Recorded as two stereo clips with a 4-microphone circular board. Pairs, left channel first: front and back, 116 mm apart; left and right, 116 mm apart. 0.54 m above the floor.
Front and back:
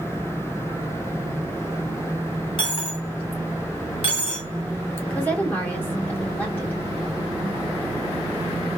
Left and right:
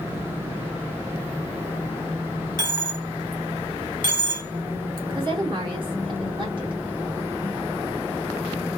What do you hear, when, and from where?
2.6 s a dropped coin: 40° right, 1.3 m
5.1 s a woman speaking: 70° right, 1.6 m